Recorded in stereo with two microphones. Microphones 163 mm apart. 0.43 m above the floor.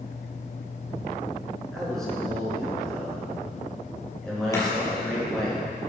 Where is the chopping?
20° left (ahead or behind), 4 m.